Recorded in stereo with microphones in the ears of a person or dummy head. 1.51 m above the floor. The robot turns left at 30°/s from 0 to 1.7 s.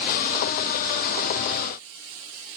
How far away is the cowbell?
I don't hear a cowbell.